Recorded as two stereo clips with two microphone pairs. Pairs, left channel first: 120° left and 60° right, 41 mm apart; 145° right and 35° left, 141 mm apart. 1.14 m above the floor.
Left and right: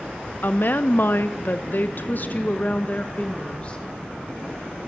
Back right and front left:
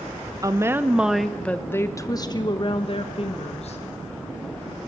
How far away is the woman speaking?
About 1.2 m.